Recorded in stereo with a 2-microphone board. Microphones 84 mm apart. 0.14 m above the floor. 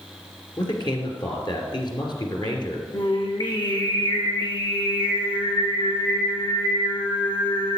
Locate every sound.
0.6 s a man speaking: 60° left (ahead or behind), 2.5 m
2.9 s singing: 75° left (ahead or behind), 2.5 m